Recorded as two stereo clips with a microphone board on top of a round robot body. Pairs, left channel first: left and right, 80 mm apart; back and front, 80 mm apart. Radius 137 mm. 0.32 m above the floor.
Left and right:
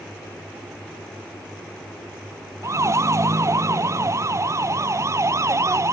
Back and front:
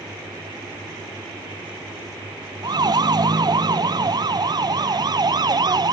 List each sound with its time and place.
2.6 s a siren: 35° right